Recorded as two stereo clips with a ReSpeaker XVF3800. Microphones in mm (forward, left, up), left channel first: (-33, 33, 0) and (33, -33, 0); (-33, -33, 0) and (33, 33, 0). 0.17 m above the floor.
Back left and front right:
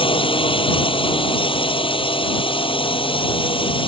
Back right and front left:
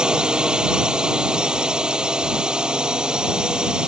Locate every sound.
0.0 s a drone: 125° left